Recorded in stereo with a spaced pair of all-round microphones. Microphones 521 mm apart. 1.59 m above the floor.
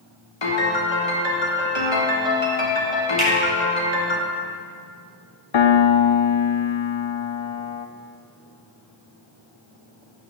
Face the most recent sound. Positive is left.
turn(degrees=60)  # may be behind; listen again after turning